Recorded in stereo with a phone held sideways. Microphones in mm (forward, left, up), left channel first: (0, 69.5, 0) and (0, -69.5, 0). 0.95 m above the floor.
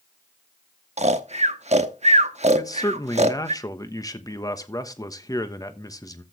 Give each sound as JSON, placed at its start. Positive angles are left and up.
{"t": 1.0, "sound": "snoring", "side_deg": -55, "distance_m": 0.9}
{"t": 2.5, "sound": "a man speaking", "side_deg": 25, "distance_m": 1.1}